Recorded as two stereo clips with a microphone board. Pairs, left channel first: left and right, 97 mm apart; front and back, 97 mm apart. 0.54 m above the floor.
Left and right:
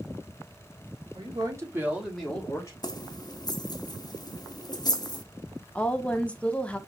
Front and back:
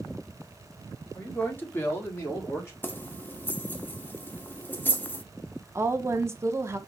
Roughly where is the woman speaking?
Behind left.